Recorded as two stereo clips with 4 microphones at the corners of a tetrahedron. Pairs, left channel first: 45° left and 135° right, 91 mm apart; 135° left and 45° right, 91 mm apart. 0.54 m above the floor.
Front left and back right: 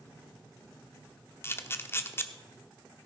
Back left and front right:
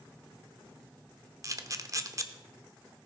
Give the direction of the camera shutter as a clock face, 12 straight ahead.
12 o'clock.